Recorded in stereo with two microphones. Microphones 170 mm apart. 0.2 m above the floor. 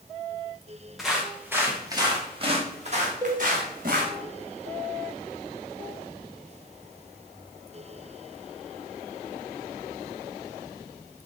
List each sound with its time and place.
1.0 s footsteps: centre (ahead or behind), 3 m; by 4.1 s 60° right (ahead or behind), 3.5 m
3.2 s a cowbell: 20° right (ahead or behind), 3 m